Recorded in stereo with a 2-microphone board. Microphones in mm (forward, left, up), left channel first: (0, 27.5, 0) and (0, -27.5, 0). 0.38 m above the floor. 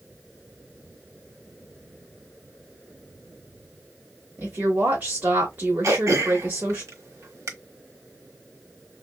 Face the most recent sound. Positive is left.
turn(degrees=-65)  # may be behind; listen again after turning